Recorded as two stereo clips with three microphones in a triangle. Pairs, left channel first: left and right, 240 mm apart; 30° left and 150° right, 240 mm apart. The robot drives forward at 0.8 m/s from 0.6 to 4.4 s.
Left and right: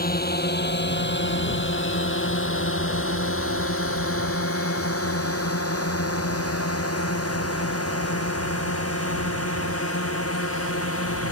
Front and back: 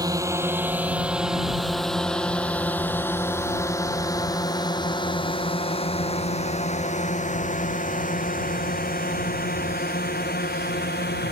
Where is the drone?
135° left; by 11.3 s 75° left.